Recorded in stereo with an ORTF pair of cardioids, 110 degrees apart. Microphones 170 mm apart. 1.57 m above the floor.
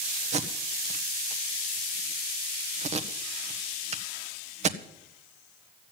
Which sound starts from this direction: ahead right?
Tape being pulled, at 0.3 s.